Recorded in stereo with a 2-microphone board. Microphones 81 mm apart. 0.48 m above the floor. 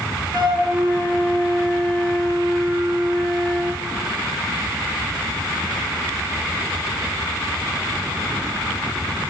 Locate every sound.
0.3 s a flute: 80° right, 1.8 m